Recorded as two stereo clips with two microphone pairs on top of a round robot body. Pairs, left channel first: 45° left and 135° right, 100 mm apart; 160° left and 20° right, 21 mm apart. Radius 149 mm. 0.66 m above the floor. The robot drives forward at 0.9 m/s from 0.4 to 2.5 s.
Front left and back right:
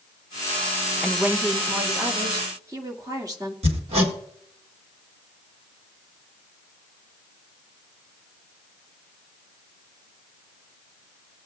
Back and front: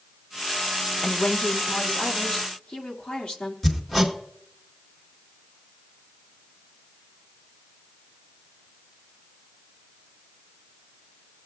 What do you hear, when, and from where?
1.0 s a woman speaking: 165° left, 0.7 m; by 3.5 s straight behind, 1.7 m
3.6 s hammering: 125° right, 1.9 m